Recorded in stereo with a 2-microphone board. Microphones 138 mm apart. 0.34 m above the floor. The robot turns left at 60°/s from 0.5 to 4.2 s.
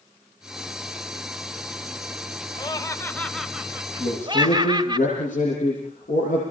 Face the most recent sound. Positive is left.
turn(degrees=75)  # may be behind; listen again after turning